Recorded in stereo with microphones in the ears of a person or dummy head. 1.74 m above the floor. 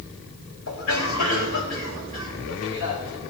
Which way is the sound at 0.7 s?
80° left.